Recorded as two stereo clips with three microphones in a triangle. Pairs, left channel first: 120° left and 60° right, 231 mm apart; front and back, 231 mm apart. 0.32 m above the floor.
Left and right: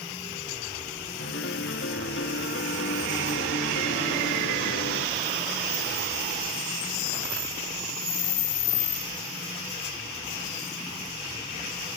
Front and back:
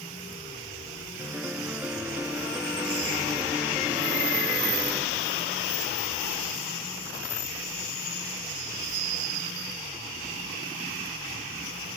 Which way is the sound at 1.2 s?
100° left.